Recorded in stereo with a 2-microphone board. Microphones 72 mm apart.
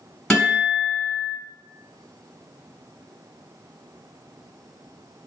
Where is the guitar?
15° left (ahead or behind), 1.5 m.